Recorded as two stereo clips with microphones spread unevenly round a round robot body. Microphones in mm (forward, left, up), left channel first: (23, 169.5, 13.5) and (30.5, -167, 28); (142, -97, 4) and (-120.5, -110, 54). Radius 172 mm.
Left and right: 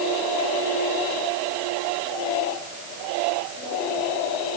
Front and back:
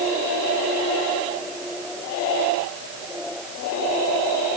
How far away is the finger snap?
I don't hear a finger snap.